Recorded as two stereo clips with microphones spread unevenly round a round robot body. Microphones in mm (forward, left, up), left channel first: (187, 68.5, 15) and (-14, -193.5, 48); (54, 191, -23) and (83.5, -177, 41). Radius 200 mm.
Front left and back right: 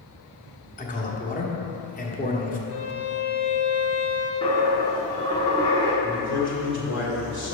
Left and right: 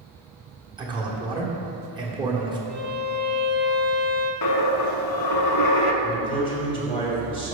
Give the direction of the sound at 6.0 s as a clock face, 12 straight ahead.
11 o'clock.